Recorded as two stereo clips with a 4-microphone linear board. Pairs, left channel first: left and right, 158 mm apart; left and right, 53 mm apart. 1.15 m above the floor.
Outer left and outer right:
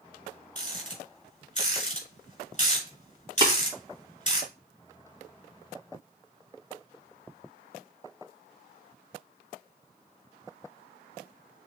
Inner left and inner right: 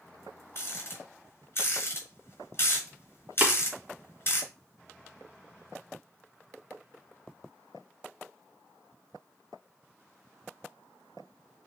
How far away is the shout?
No shout in this recording.